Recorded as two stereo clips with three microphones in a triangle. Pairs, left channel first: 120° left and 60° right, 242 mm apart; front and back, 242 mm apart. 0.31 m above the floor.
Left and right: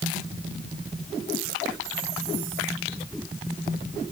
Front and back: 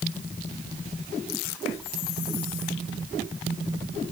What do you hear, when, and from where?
Only background noise.